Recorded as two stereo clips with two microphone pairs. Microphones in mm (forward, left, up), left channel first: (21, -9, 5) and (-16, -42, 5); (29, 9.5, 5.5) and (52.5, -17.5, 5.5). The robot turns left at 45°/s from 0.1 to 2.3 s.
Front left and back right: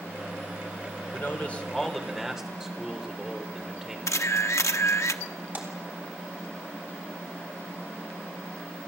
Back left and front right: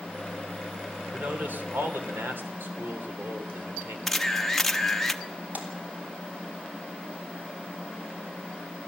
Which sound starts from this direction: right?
A splash, at 5.5 s.